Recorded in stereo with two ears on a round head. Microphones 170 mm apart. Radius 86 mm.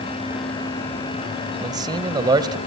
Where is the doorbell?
No doorbell in this recording.